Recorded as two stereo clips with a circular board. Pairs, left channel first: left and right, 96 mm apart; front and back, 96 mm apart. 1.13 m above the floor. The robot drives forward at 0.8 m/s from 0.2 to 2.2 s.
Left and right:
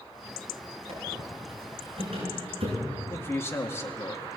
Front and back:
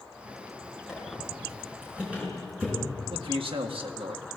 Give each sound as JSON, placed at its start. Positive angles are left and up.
{"t": 0.9, "sound": "a squeak", "azimuth_deg": -95, "distance_m": 8.0}
{"t": 3.1, "sound": "a man speaking", "azimuth_deg": 155, "distance_m": 1.8}